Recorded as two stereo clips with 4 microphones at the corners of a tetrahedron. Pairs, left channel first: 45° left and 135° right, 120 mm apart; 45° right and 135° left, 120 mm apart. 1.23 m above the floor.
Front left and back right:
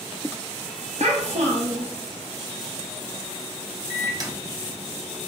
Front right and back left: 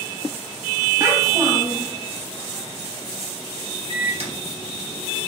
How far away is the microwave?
About 0.7 m.